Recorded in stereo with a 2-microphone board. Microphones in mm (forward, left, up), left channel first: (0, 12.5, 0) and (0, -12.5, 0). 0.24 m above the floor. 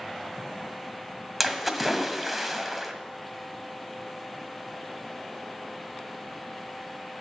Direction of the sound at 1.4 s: Centre (ahead or behind).